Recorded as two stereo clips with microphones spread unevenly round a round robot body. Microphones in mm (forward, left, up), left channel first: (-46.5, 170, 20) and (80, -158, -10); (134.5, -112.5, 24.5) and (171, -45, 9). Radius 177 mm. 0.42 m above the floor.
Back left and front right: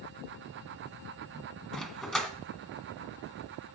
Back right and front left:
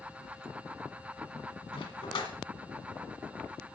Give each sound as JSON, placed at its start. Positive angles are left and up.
{"t": 1.7, "sound": "a dog barking", "azimuth_deg": -160, "distance_m": 1.3}